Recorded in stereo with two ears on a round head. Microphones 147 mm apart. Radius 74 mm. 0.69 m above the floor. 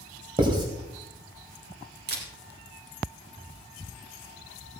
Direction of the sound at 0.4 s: 30° right (ahead or behind).